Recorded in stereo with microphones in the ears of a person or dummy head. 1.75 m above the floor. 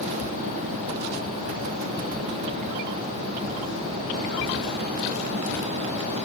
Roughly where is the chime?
I don't hear a chime.